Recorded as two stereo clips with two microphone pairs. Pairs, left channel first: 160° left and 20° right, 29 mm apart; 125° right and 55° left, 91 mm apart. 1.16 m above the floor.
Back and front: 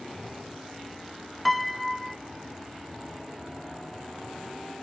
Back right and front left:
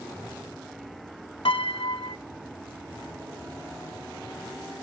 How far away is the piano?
About 0.8 m.